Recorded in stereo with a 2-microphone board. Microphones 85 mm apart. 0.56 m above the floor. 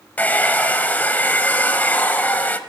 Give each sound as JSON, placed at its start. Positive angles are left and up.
{"t": 0.2, "sound": "a hair dryer", "side_deg": 20, "distance_m": 0.7}